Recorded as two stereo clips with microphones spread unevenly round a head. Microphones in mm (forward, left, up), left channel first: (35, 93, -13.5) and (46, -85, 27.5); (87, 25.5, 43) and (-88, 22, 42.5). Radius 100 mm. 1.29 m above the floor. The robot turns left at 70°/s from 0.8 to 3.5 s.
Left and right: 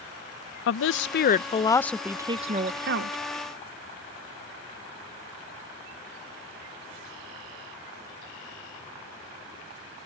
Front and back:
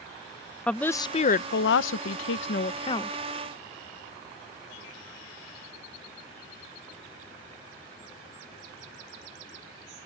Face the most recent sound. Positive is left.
turn(degrees=-105)